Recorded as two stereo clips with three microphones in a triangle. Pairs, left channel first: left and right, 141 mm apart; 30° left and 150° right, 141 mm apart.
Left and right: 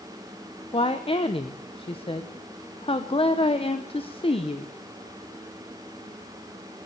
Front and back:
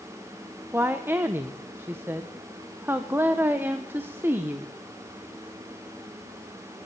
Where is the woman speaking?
135° left, 0.9 m.